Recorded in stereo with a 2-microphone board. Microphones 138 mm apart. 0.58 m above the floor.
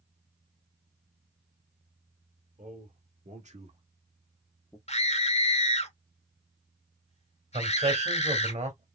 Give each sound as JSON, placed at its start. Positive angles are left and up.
{"t": 2.6, "sound": "a man speaking", "side_deg": -65, "distance_m": 2.5}
{"t": 4.9, "sound": "a scream", "side_deg": 50, "distance_m": 1.3}
{"t": 7.5, "sound": "a man speaking", "side_deg": -60, "distance_m": 2.5}